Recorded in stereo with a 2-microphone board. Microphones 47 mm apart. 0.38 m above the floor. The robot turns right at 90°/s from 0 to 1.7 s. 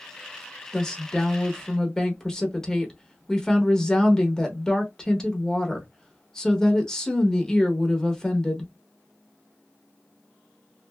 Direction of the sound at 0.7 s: 10° left (ahead or behind).